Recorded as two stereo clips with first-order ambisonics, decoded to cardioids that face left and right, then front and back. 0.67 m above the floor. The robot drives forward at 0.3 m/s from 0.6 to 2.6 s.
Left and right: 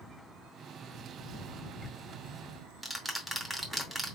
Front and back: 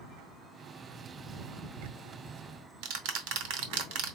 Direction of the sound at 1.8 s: 175° right.